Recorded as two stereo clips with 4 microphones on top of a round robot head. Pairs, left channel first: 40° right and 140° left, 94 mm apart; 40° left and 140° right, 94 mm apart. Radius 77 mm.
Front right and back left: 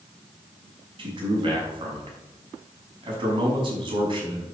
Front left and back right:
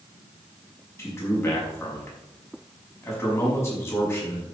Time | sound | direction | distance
1.0 | a man speaking | 105° left | 5 m